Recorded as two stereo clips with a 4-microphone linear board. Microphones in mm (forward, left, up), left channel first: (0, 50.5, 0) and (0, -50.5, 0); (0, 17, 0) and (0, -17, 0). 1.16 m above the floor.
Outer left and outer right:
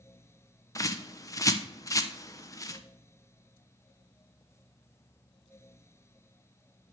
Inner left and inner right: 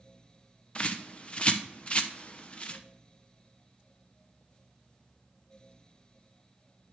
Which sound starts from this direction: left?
A bird, at 0.8 s.